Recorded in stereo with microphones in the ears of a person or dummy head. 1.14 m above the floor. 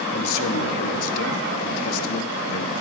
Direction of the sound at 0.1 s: 70° left (ahead or behind).